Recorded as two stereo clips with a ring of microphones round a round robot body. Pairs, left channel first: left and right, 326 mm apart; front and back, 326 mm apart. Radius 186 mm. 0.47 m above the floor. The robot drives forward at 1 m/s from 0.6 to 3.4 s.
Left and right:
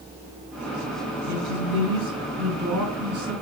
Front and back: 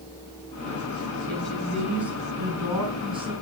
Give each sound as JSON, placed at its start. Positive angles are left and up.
{"t": 1.3, "sound": "a woman speaking", "azimuth_deg": -85, "distance_m": 5.5}